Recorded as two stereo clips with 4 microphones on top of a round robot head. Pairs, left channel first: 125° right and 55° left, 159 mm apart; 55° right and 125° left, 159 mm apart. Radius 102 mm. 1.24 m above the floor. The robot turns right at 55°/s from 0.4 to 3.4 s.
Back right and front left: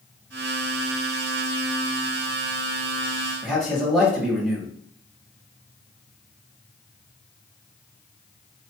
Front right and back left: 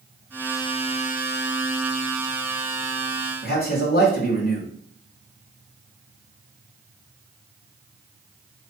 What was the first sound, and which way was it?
A man speaking, 35° right.